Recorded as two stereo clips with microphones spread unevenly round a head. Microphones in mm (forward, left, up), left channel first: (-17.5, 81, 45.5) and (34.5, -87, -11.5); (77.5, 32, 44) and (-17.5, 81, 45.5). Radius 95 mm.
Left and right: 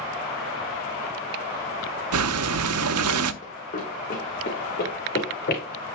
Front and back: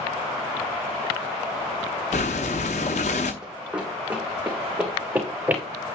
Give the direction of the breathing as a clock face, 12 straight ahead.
3 o'clock.